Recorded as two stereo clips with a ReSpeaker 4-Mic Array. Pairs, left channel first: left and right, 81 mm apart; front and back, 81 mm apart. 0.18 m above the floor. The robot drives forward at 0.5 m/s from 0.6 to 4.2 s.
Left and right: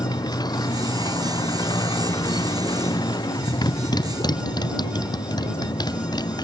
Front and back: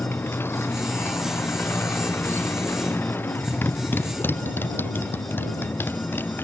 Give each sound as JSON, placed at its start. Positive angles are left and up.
{"t": 0.0, "sound": "a motorcycle", "azimuth_deg": 60}